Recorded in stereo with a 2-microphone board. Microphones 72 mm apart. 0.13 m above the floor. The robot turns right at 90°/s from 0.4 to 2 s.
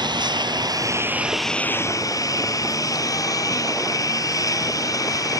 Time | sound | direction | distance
0.0 | a lawn mower | 90° right | ?